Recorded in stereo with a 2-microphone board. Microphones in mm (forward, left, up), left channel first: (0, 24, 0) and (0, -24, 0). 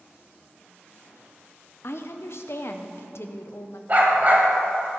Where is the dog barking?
40° right (ahead or behind), 2.5 m.